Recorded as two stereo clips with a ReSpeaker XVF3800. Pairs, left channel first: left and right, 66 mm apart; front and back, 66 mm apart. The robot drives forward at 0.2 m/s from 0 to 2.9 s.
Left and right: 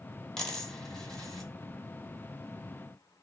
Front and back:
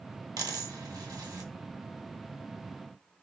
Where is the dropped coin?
165° left, 0.8 m; by 1.5 s 170° left, 1.1 m.